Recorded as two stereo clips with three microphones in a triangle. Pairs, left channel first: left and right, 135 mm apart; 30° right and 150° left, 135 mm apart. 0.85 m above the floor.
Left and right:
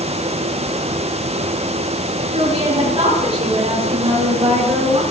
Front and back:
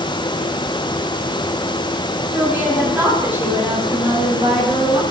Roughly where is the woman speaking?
Behind right.